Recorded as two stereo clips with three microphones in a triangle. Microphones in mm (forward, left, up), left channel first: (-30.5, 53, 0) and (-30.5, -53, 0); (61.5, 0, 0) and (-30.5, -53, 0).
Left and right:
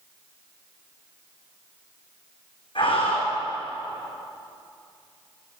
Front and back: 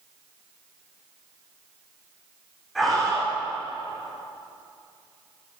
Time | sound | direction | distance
2.8 | a scream | 120° left | 7 m